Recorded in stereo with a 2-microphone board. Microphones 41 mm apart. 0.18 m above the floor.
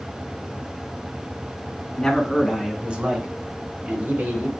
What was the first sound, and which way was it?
A man speaking, 10° left (ahead or behind).